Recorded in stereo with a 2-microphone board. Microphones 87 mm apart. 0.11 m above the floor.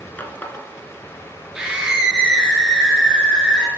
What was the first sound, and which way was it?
A running tap, 20° left (ahead or behind).